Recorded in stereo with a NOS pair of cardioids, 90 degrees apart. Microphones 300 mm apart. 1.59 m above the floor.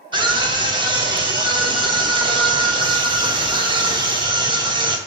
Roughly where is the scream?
Ahead.